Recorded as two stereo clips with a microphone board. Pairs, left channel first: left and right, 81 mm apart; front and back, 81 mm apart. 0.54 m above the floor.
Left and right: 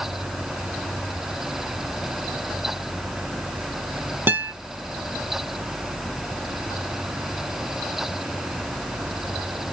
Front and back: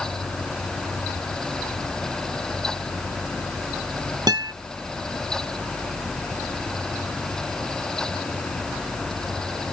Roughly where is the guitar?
Behind right.